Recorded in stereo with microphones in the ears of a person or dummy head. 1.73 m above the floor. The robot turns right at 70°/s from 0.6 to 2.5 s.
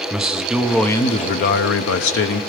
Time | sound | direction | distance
0.1 | a man speaking | 5° right | 0.9 m